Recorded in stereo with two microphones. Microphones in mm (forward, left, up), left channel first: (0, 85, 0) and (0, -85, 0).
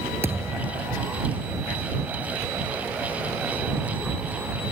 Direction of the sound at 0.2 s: 15° right (ahead or behind).